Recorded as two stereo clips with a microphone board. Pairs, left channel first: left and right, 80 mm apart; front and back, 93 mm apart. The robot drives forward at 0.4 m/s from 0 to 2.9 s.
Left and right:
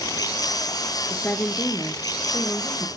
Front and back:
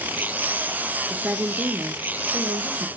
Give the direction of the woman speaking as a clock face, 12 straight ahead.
8 o'clock.